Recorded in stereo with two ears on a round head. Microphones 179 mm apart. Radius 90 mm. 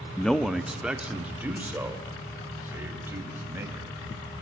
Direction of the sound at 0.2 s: 5° left (ahead or behind).